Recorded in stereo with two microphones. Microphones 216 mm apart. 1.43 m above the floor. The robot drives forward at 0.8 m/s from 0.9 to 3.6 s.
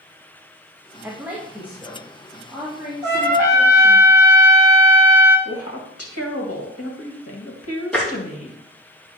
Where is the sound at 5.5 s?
85° left, 2 m.